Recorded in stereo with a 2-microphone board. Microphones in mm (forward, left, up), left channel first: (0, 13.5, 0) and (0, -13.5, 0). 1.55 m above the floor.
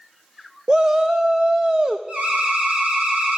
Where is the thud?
No thud in this recording.